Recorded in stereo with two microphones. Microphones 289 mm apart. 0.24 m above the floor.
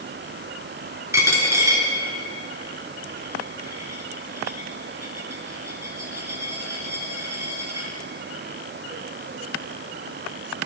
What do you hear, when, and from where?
1.1 s a dropped coin: 10° right (ahead or behind), 1.4 m